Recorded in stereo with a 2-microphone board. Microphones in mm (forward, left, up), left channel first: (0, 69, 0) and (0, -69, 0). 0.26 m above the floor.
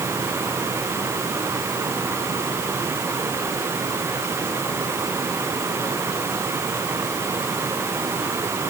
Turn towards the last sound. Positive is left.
No sound to turn to.